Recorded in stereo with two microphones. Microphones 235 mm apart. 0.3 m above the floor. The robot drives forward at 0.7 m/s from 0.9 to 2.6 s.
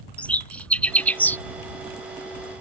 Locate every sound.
0.2 s a bird: 5° left (ahead or behind); by 1.4 s 10° left (ahead or behind)